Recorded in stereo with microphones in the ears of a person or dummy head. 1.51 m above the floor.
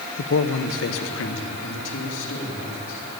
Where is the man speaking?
60° left (ahead or behind), 0.7 m; by 3.0 s 70° left (ahead or behind), 3.5 m.